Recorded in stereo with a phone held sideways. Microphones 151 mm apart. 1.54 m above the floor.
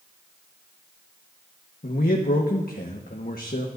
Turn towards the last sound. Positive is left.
turn(degrees=80)